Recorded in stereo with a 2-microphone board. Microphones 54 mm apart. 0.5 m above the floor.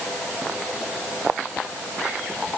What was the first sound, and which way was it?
Only background noise.